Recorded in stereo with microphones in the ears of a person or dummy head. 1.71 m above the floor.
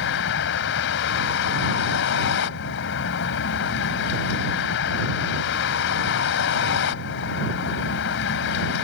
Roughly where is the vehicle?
Left.